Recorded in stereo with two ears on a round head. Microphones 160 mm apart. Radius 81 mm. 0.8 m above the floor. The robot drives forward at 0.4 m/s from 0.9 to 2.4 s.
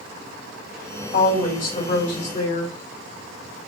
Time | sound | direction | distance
1.1 | a woman speaking | 50° left (ahead or behind) | 2.0 m